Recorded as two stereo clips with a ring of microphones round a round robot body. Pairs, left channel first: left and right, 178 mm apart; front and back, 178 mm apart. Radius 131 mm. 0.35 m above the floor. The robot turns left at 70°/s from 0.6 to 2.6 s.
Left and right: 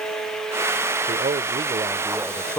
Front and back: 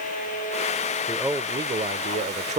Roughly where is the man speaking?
Right.